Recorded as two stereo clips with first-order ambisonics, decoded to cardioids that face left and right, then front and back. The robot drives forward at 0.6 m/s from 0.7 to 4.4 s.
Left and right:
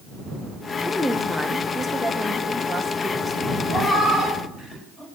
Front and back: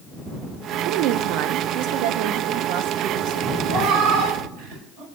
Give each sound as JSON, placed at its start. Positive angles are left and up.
{"t": 0.8, "sound": "a woman speaking", "azimuth_deg": 175, "distance_m": 0.7}
{"t": 3.7, "sound": "a cat meowing", "azimuth_deg": 155, "distance_m": 3.0}